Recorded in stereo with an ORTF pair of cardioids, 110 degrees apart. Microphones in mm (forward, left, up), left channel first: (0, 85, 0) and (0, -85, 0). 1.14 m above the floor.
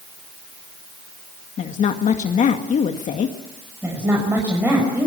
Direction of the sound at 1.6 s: 50° left.